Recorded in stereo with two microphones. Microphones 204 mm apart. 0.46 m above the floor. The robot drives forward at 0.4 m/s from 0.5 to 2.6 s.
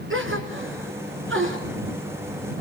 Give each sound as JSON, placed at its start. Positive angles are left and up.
{"t": 0.1, "sound": "a gasp", "side_deg": -85, "distance_m": 3.0}